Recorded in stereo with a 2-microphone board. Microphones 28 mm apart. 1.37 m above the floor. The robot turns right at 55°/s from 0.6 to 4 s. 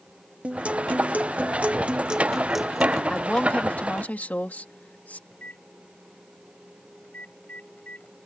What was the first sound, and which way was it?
A guitar, 120° right.